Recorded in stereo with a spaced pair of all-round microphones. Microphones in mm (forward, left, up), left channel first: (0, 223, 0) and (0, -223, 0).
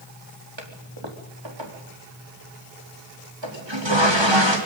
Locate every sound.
0.6 s a toilet flushing: 75° right (ahead or behind), 4 m